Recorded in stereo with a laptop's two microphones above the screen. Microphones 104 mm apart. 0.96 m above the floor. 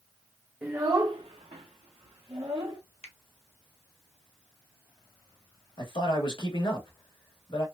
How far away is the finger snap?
About 0.6 m.